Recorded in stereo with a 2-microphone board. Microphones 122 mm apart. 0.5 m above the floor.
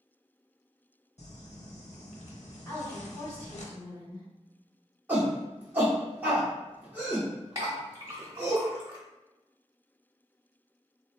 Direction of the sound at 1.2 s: 60° left (ahead or behind).